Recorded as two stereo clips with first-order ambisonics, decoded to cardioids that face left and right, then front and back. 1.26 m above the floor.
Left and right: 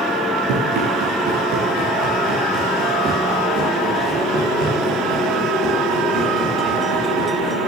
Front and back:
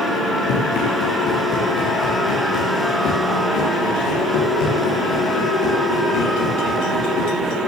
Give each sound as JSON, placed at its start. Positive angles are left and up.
{"t": 0.5, "sound": "running footsteps", "azimuth_deg": -50, "distance_m": 5.0}